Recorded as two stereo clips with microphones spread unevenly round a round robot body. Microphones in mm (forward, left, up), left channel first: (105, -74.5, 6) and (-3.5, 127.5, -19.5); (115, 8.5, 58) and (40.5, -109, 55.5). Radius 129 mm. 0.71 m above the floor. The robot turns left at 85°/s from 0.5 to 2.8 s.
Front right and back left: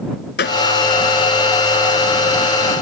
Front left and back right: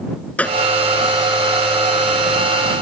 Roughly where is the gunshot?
Ahead.